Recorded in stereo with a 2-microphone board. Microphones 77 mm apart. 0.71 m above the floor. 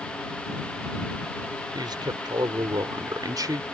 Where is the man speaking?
70° right (ahead or behind); by 3.6 s 55° right (ahead or behind).